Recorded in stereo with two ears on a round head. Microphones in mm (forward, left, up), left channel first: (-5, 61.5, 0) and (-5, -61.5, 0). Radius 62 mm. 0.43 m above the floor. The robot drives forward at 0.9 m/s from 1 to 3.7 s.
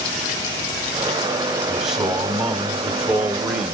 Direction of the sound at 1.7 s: 5° right (ahead or behind).